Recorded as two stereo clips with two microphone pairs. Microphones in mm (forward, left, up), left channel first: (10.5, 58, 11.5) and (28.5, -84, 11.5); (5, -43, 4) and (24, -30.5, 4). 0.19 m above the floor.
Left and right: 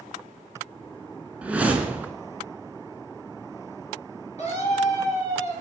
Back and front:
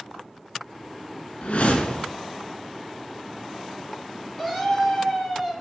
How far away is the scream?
About 3.5 m.